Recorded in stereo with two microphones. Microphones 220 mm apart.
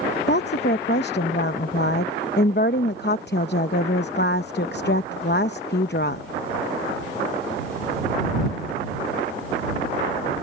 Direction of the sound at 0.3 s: 55° left (ahead or behind).